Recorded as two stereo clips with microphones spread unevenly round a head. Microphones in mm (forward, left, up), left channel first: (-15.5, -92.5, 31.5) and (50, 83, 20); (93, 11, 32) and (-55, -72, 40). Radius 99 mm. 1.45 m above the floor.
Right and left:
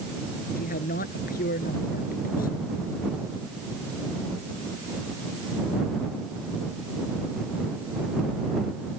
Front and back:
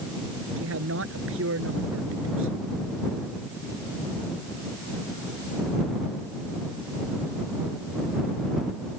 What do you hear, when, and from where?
0.6 s a man speaking: 160° right